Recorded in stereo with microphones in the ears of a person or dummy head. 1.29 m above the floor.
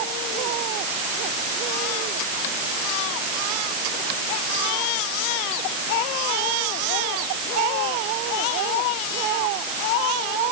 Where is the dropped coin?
No dropped coin in this recording.